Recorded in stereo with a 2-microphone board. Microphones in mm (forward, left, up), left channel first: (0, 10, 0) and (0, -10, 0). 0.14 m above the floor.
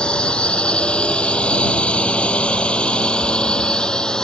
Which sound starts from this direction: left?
A drone, at 0.0 s.